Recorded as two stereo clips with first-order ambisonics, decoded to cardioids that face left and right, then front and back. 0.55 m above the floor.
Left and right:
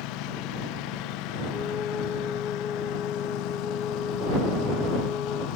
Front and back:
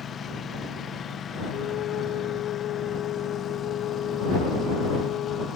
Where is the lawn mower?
65° left.